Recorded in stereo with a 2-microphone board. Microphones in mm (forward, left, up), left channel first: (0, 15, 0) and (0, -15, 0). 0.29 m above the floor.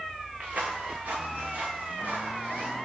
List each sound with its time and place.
0.4 s footsteps: 60° right (ahead or behind), 1.2 m; by 2.8 s 80° right, 3 m